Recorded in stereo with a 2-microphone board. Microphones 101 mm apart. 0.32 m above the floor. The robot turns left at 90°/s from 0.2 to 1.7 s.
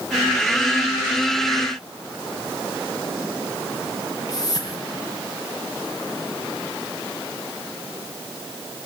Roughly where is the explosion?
No explosion in this recording.